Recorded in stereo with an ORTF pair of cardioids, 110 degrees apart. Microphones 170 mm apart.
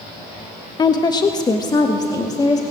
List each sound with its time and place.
0.8 s a woman speaking: 25° left, 0.9 m; by 2.6 s 20° left, 2 m